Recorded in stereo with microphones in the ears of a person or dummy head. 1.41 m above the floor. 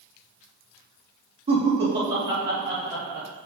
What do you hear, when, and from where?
1.5 s laughter: 30° right (ahead or behind), 2.5 m; by 3.3 s centre (ahead or behind), 4 m